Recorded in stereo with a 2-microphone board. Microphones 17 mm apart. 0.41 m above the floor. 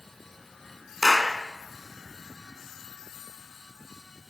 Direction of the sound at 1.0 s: 15° left (ahead or behind).